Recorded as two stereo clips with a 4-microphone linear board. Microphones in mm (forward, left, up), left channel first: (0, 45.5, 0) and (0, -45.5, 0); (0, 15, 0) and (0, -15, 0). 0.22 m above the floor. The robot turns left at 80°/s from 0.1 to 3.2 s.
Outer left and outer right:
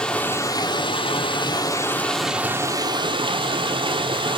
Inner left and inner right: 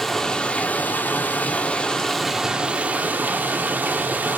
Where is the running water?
170° left, 0.8 m; by 4.4 s 80° right, 0.8 m.